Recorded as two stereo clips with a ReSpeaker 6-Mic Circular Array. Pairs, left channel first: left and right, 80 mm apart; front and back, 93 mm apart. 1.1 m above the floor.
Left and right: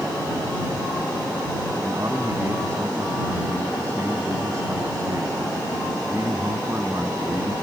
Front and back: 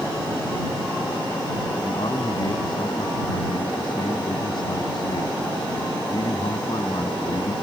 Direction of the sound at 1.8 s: 35° right.